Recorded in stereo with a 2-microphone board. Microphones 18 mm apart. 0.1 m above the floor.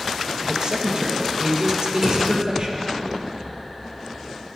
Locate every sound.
0.4 s a man speaking: 45° right (ahead or behind), 3 m
2.0 s a drawer: 35° right (ahead or behind), 3 m